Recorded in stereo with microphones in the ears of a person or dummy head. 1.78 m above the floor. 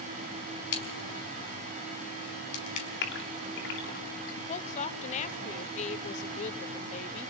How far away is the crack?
About 5 m.